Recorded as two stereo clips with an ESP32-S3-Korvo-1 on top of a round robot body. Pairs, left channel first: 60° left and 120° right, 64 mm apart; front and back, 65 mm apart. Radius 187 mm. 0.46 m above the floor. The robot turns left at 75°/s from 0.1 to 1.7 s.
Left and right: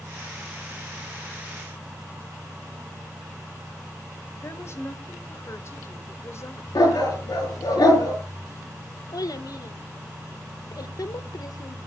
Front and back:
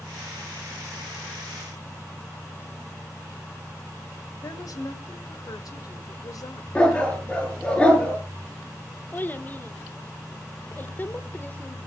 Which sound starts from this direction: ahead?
A woman speaking, at 4.4 s.